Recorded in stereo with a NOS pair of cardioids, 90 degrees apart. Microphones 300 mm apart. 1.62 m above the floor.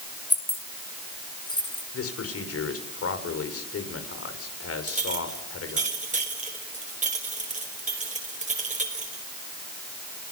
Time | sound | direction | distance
0.3 | keys jangling | 5° left | 3.5 m
1.9 | a man speaking | 50° left | 6 m
4.9 | a clink | 25° right | 5 m